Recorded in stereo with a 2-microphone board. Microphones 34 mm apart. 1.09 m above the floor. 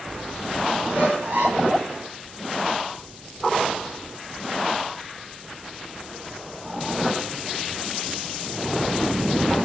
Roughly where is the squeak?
Right.